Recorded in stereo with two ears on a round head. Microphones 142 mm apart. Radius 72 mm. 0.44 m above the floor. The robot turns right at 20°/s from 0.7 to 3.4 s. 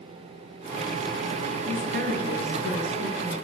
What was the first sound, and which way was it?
A woman speaking, 120° right.